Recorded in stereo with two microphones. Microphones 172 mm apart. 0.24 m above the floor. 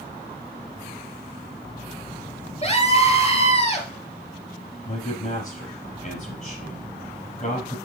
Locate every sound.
2.6 s a scream: 40° left (ahead or behind), 3.5 m
4.8 s a man speaking: 50° left (ahead or behind), 4.5 m